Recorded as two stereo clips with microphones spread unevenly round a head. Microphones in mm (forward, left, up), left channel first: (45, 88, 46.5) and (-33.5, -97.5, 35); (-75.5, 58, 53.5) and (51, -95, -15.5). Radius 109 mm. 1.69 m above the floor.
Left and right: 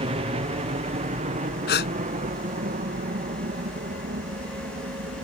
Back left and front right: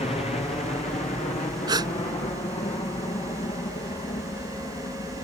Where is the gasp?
30° left.